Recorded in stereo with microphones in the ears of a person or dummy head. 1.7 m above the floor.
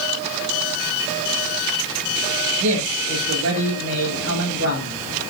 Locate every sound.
2.6 s a man speaking: 70° right (ahead or behind), 9 m